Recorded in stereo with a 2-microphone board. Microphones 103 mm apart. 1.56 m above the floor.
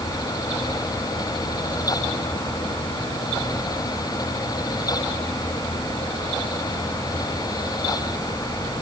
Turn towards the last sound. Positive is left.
No sound to turn to.